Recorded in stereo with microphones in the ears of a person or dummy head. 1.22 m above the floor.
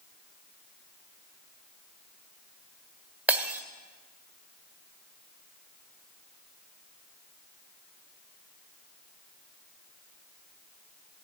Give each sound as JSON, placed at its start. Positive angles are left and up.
{"t": 3.3, "sound": "breaking glass", "side_deg": -10, "distance_m": 1.6}